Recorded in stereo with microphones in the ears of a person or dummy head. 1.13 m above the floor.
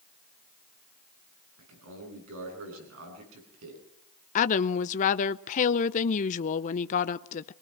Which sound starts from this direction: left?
A woman speaking, at 4.3 s.